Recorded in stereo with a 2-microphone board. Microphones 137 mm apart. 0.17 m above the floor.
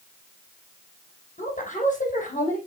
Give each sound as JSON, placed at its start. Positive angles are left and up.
{"t": 1.4, "sound": "a woman speaking", "side_deg": 65, "distance_m": 6.5}